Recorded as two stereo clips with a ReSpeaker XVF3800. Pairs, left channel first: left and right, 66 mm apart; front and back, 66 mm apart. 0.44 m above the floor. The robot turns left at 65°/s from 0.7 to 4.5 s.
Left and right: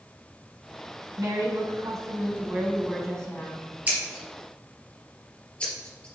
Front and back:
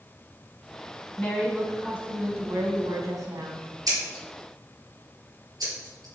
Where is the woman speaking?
55° right, 3.5 m; by 3.6 s 145° left, 3.5 m.